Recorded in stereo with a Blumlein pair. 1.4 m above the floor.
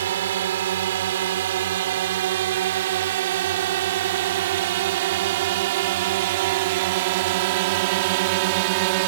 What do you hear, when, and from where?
0.0 s a drone: 60° right; by 9.1 s 45° right